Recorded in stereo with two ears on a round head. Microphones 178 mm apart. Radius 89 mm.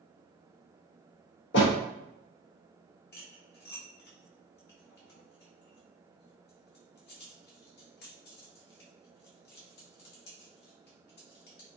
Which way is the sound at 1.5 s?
60° left (ahead or behind).